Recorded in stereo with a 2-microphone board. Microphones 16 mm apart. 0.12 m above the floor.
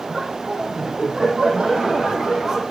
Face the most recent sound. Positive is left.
turn(degrees=-65)  # may be behind; listen again after turning